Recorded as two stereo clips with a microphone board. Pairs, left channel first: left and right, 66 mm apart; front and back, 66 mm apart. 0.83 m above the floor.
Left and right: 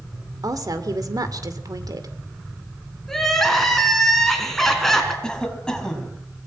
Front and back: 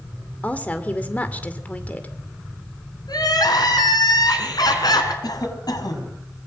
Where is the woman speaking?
65° right, 2.5 m.